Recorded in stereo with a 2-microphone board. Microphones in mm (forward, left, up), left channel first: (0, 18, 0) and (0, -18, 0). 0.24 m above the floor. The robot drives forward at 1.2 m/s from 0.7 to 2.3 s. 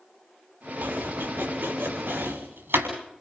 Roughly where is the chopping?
Right.